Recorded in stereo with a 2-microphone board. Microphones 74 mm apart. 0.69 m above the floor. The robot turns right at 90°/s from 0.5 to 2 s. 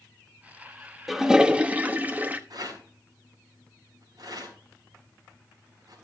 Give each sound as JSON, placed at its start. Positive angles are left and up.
{"t": 1.1, "sound": "a toilet flushing", "side_deg": 0, "distance_m": 0.9}
{"t": 2.5, "sound": "a rattle", "side_deg": -55, "distance_m": 4.5}